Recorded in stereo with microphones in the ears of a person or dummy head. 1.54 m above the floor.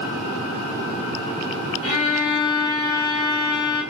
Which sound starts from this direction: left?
A violin, at 1.8 s.